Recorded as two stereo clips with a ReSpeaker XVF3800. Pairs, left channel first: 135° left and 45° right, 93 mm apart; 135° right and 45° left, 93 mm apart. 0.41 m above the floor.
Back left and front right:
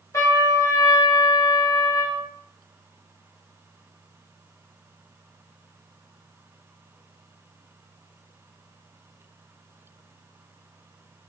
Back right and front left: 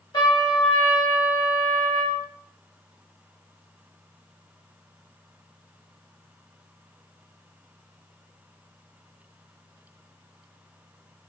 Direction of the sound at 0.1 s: 170° right.